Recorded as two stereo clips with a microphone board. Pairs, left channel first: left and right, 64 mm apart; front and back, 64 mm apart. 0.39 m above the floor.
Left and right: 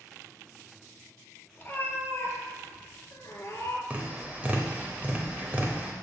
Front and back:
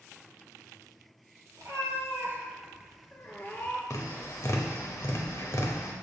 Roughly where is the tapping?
Ahead right.